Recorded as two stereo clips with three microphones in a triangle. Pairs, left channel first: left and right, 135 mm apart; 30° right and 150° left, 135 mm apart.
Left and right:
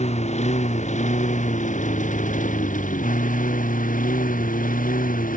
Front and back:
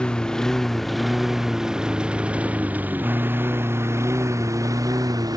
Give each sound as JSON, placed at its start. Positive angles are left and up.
{"t": 0.0, "sound": "a lawn mower", "azimuth_deg": 55}